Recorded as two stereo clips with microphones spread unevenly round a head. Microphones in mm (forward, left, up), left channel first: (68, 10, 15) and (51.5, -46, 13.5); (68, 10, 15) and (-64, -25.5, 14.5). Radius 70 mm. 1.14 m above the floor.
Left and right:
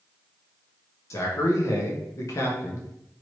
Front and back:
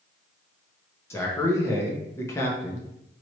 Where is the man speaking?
80° left, 0.9 m.